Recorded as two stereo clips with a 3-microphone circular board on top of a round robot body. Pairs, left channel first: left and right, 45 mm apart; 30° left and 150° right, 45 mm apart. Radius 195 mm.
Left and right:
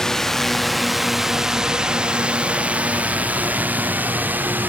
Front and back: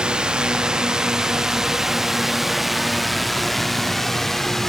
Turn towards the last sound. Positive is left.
turn(degrees=-50)